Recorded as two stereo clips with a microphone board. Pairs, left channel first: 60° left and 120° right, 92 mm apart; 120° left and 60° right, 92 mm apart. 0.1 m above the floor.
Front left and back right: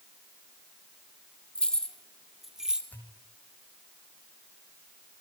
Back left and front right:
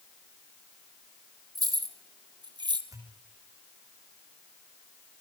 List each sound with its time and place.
1.6 s keys jangling: 20° right, 2.5 m; by 2.8 s 40° right, 1.9 m
2.9 s a pop: 10° right, 6.5 m